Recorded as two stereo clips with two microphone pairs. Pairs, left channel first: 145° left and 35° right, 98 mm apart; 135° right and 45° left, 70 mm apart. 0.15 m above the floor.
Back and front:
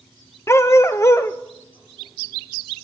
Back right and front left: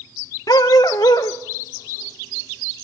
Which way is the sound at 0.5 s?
155° right.